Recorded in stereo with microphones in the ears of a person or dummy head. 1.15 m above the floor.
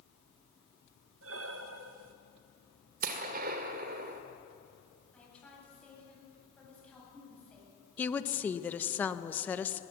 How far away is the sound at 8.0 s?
About 1.0 m.